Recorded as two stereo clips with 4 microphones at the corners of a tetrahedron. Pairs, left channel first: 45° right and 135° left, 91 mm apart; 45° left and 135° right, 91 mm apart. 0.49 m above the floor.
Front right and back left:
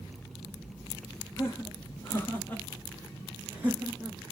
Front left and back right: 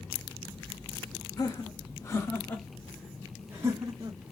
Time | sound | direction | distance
1.4 | laughter | 5° left | 1.5 m